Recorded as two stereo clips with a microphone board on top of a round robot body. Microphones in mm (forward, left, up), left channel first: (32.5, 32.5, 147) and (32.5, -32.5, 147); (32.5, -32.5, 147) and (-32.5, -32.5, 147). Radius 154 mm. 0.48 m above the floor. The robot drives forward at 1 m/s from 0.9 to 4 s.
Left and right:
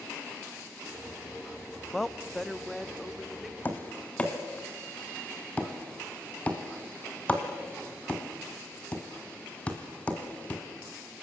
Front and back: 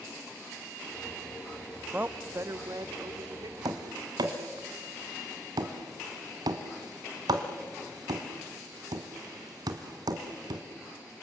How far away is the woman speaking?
About 0.7 m.